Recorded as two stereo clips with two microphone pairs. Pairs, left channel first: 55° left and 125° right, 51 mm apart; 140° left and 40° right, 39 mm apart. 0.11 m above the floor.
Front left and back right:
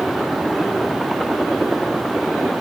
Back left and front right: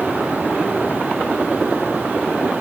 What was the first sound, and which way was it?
Only background noise.